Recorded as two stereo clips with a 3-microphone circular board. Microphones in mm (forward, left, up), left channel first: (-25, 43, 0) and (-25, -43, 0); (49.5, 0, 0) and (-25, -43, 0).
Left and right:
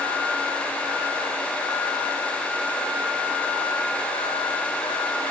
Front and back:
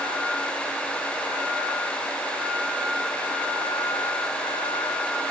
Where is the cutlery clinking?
I don't hear cutlery clinking.